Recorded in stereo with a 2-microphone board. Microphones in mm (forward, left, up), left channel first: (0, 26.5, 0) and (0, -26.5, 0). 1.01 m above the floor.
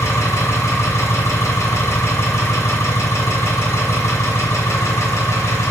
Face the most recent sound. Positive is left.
turn(degrees=65)  # may be behind; listen again after turning